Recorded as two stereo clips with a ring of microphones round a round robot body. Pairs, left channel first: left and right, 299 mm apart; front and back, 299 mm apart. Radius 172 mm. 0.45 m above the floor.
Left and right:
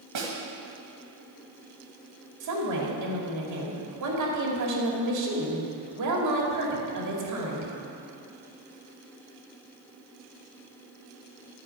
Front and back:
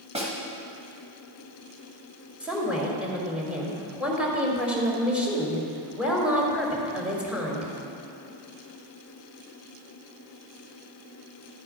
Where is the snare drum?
110° right, 2.5 m.